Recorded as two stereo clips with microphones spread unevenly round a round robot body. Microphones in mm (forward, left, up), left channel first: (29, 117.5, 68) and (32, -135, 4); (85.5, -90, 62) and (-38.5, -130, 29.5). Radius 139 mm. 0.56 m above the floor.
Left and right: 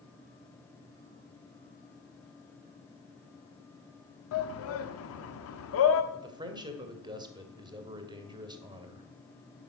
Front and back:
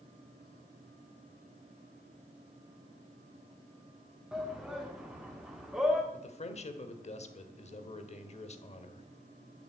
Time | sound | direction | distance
4.3 | a shout | 125° left | 1.1 m
6.1 | a man speaking | 20° right | 2 m